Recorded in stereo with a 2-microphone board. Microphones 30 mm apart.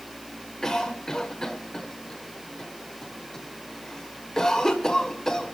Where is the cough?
20° left (ahead or behind), 1.5 m.